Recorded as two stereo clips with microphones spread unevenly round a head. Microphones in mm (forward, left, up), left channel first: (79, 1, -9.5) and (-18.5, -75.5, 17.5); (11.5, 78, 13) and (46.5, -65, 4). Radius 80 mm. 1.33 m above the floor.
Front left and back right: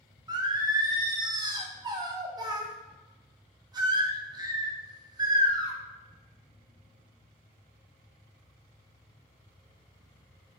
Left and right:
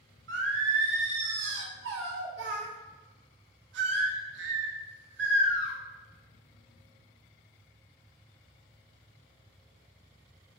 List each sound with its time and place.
0.3 s singing: 80° right, 0.7 m